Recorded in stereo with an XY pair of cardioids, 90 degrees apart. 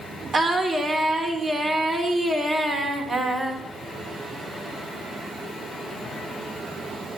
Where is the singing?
55° right, 3 m.